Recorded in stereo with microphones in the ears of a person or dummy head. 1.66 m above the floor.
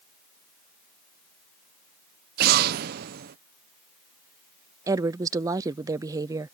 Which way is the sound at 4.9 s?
20° right (ahead or behind).